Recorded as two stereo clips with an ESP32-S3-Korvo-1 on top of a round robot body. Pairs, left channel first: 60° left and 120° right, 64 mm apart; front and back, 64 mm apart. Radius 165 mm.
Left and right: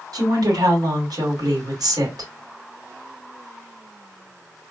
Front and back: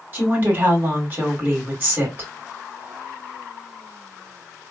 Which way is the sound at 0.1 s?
120° right.